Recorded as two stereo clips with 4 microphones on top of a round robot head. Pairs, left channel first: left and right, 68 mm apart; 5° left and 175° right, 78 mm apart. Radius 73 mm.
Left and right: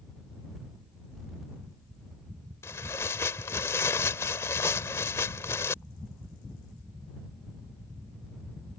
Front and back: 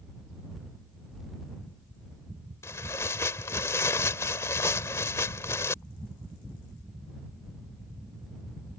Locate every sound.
2.6 s tearing paper: 50° left